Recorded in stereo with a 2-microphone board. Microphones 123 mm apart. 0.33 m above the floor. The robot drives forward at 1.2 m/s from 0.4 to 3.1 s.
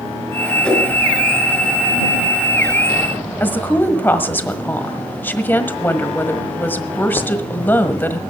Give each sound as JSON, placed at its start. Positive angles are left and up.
{"t": 0.6, "sound": "a whoosh", "side_deg": 5, "distance_m": 4.5}
{"t": 3.4, "sound": "a woman speaking", "side_deg": 15, "distance_m": 1.4}